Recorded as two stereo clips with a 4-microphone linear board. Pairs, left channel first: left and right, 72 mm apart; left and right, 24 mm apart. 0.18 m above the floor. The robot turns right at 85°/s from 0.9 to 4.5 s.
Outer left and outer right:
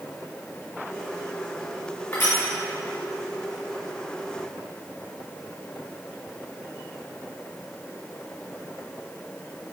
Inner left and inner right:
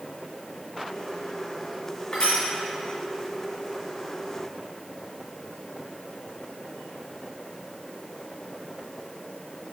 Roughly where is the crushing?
Left.